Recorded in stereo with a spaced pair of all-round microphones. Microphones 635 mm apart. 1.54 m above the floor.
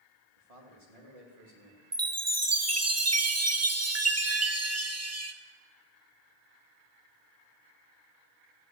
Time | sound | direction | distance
0.4 | a man speaking | 65° right (ahead or behind) | 3 m
1.9 | a chime | 25° right (ahead or behind) | 0.8 m